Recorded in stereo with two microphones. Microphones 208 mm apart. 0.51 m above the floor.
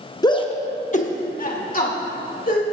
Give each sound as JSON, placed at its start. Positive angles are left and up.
{"t": 0.2, "sound": "a shout", "side_deg": 20, "distance_m": 0.7}